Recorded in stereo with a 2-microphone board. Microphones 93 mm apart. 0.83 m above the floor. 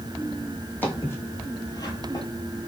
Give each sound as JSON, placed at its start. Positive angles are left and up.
{"t": 0.8, "sound": "footsteps", "side_deg": 15, "distance_m": 1.8}